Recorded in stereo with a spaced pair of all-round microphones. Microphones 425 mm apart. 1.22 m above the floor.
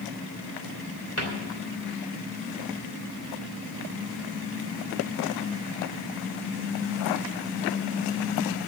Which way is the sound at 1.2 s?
35° left (ahead or behind).